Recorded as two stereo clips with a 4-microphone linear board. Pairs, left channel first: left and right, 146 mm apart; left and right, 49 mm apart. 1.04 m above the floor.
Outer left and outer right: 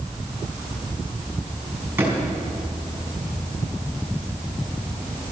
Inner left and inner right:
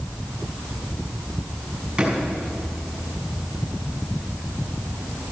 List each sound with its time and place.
2.0 s a drawer: 15° right (ahead or behind), 4 m